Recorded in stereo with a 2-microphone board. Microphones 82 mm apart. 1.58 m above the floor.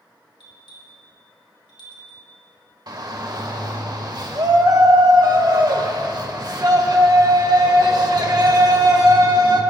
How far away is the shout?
About 1.6 m.